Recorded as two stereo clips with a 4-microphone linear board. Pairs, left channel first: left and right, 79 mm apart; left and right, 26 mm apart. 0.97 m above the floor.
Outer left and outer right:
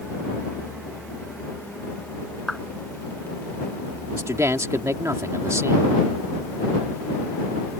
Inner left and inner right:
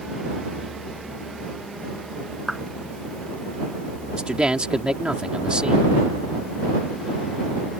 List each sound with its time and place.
2.5 s a clap: centre (ahead or behind)
4.1 s a man speaking: 40° right (ahead or behind)